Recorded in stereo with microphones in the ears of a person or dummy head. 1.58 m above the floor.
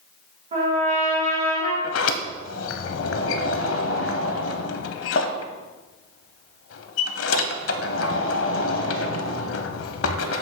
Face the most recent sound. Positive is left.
turn(degrees=75)  # may be behind; listen again after turning